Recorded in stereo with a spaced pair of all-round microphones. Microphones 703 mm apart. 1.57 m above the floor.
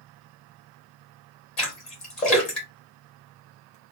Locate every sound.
1.6 s a splash: 60° left (ahead or behind), 1.4 m